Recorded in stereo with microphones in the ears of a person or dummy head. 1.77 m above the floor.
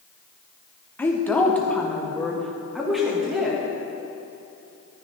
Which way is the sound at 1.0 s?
5° left (ahead or behind).